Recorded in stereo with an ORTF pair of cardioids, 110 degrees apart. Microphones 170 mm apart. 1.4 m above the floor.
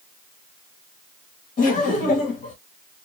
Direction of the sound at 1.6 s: 50° left.